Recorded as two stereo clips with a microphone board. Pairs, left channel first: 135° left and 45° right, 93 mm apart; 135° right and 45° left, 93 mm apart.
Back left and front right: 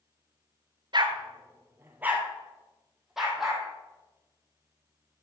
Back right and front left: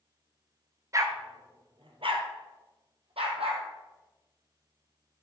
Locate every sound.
0.9 s a dog barking: 10° right, 0.9 m; by 3.6 s 45° left, 2.5 m